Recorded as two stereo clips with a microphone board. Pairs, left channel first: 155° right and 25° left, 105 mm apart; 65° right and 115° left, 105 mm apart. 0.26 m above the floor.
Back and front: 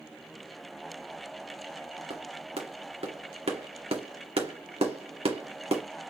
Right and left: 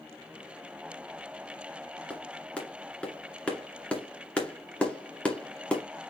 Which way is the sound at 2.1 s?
10° left.